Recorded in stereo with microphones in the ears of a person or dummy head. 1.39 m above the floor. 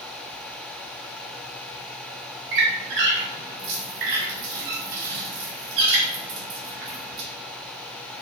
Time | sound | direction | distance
2.5 | a squeak | 60° right (ahead or behind) | 0.5 m